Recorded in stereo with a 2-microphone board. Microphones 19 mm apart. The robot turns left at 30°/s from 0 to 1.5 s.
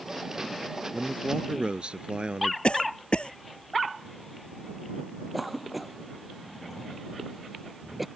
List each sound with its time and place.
0.9 s a man speaking: 60° right (ahead or behind); by 2.5 s 65° right (ahead or behind)
2.6 s a cough: 65° left (ahead or behind)
5.3 s a cough: 10° right (ahead or behind)